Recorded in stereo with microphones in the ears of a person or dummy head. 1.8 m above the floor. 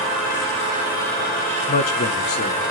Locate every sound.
1.7 s a man speaking: 40° left (ahead or behind), 1.6 m